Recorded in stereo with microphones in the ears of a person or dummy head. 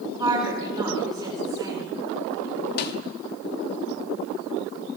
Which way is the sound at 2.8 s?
55° left (ahead or behind).